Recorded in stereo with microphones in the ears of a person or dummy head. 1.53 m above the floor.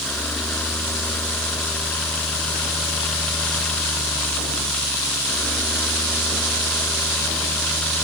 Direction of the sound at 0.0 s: 10° left (ahead or behind).